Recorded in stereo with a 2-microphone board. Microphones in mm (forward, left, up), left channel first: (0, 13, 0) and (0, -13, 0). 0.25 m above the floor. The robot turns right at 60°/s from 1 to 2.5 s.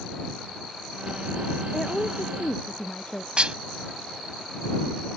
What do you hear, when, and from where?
1.7 s a woman speaking: 10° left; by 3.3 s 55° left
3.4 s dishes clattering: 45° right (ahead or behind)